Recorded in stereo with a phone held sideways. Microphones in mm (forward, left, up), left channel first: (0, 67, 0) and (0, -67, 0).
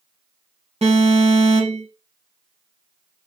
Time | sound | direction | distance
0.8 | an alarm | 50° right (ahead or behind) | 3 m